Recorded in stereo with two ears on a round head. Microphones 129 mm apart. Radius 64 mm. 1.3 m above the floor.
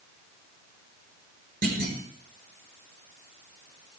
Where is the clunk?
75° right (ahead or behind), 5 m.